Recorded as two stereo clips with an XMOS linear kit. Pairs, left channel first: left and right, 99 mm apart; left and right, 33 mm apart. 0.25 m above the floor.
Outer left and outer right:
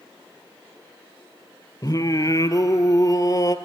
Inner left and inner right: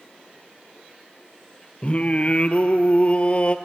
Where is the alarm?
No alarm in this recording.